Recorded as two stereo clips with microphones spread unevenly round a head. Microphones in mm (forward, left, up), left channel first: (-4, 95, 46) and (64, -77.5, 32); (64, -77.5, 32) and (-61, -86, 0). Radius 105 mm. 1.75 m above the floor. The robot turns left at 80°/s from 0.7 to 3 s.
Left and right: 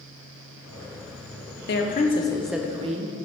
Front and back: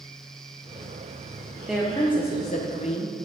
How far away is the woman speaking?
About 1.0 m.